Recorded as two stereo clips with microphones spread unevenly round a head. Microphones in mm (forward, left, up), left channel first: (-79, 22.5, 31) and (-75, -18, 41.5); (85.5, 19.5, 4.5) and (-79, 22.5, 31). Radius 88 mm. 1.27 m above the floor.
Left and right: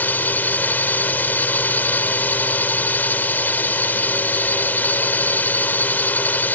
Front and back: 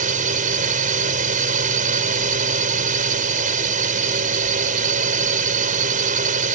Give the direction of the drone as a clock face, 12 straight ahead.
7 o'clock.